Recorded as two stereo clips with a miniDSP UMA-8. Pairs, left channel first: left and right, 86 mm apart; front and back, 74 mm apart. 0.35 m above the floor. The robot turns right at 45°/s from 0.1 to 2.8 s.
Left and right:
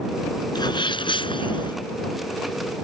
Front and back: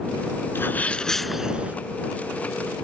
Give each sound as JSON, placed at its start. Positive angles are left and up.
{"t": 0.6, "sound": "a sneeze", "azimuth_deg": 60}